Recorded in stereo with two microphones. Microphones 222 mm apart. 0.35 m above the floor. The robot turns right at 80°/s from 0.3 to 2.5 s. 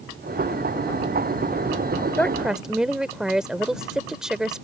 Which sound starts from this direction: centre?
A woman speaking, at 2.2 s.